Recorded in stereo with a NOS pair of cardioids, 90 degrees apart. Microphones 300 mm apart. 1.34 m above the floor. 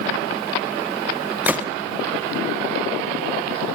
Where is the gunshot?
5° right, 1.0 m.